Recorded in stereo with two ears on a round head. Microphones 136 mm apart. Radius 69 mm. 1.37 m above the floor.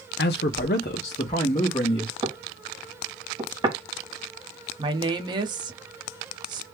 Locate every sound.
0.2 s a man speaking: 70° left (ahead or behind), 0.6 m; by 2.1 s 30° left (ahead or behind), 1.3 m
2.2 s knocking: 25° right (ahead or behind), 0.9 m
4.8 s a woman speaking: 30° right (ahead or behind), 0.9 m